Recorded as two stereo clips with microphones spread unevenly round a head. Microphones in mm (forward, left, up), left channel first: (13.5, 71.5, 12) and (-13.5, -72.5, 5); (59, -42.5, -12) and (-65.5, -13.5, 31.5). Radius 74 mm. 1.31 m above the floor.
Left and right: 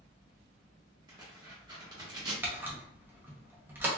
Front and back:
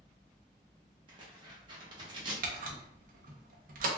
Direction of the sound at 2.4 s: Straight behind.